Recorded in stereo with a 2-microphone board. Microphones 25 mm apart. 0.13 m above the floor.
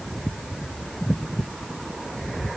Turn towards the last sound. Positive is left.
No sound to turn to.